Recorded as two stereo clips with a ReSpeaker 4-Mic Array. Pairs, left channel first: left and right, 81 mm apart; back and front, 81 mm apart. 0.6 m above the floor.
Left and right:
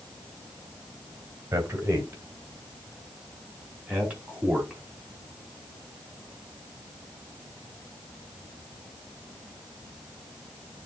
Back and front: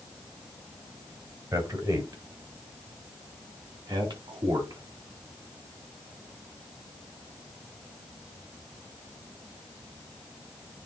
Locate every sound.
1.5 s a man speaking: 35° right, 2.5 m; by 4.8 s 10° right, 4 m